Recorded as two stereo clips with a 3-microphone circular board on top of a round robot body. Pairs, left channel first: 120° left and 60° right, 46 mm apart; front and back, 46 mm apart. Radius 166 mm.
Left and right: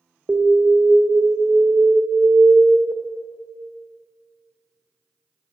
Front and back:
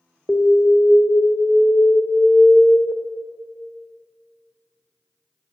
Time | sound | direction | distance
0.3 | an alarm | 50° right | 1.1 m